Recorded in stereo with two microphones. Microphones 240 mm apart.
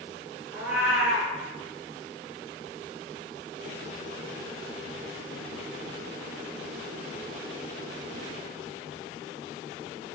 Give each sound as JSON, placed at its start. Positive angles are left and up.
{"t": 0.5, "sound": "a cat meowing", "side_deg": -5, "distance_m": 1.0}